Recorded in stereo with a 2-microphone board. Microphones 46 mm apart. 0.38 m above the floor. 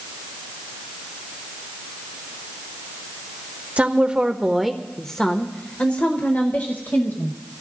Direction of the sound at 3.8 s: 30° right (ahead or behind).